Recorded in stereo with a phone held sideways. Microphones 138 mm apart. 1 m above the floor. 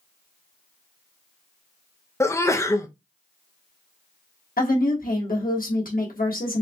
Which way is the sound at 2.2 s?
20° left (ahead or behind).